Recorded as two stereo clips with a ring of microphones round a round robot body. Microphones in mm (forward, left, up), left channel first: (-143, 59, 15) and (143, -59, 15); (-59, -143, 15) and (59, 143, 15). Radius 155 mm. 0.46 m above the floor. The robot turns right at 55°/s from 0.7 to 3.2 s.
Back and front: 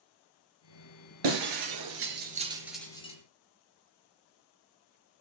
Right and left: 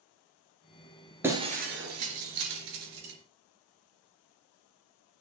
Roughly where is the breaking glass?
Ahead.